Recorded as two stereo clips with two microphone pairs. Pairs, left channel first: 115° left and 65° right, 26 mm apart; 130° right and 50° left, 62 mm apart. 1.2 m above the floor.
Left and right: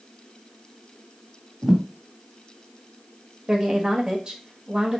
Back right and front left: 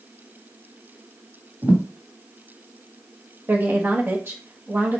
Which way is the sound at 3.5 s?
10° right.